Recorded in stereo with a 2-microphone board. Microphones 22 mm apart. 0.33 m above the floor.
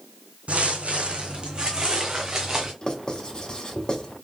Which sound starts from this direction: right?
Footsteps, at 0.5 s.